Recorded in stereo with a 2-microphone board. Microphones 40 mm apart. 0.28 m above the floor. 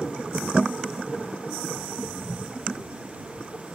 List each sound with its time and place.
1.7 s footsteps: 40° right (ahead or behind)